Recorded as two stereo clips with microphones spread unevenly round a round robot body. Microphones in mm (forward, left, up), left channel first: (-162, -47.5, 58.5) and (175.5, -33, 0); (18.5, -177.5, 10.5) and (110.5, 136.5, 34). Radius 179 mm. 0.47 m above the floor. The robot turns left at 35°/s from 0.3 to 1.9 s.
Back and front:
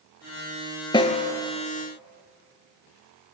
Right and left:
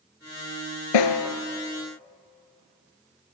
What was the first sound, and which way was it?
A snare drum, 105° right.